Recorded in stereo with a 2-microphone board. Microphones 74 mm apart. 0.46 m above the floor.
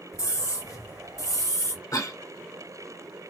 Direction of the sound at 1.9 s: 50° left (ahead or behind).